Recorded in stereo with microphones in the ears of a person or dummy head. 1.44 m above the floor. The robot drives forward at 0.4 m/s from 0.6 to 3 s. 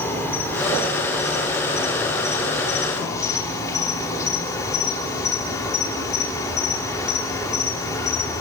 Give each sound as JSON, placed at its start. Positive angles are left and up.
{"t": 0.0, "sound": "an insect", "side_deg": 20, "distance_m": 6.0}